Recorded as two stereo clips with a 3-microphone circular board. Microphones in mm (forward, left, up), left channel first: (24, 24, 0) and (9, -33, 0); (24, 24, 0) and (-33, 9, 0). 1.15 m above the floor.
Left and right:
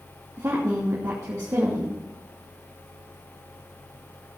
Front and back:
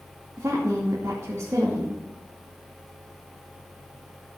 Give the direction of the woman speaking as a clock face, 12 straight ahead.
4 o'clock.